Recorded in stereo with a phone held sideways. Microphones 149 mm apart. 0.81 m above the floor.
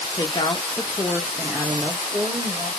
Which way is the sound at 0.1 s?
30° left (ahead or behind).